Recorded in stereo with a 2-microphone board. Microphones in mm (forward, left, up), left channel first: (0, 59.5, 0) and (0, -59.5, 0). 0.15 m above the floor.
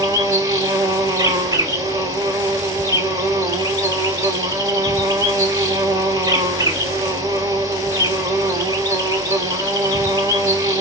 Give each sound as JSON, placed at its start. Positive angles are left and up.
{"t": 0.0, "sound": "an insect", "side_deg": -30, "distance_m": 1.3}